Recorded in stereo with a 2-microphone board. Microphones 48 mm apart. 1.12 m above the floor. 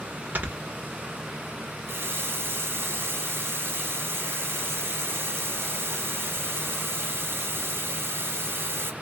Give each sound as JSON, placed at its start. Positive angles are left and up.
{"t": 0.3, "sound": "snoring", "side_deg": -45, "distance_m": 1.7}
{"t": 1.9, "sound": "a running tap", "side_deg": -60, "distance_m": 0.7}